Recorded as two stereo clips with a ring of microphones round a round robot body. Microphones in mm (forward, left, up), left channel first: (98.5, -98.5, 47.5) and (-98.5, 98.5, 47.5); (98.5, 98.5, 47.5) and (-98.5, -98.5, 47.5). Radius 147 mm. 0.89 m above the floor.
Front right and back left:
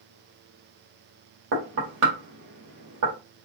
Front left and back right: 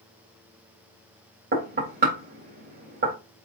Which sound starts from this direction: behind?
Knocking, at 1.5 s.